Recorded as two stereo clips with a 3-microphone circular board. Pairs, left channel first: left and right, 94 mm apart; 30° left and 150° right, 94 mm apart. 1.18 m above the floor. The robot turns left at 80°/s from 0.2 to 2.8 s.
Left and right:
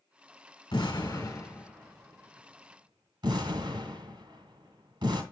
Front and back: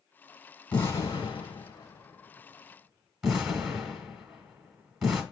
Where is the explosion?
95° left, 1.4 m; by 5.2 s 70° right, 1.4 m.